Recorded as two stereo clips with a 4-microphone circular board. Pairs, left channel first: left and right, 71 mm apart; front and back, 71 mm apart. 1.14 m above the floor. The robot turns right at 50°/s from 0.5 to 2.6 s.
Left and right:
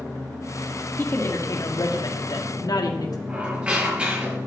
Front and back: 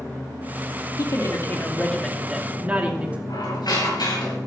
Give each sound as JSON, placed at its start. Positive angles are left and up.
{"t": 1.0, "sound": "a woman speaking", "azimuth_deg": 30, "distance_m": 2.5}
{"t": 3.3, "sound": "a squeak", "azimuth_deg": -20, "distance_m": 8.5}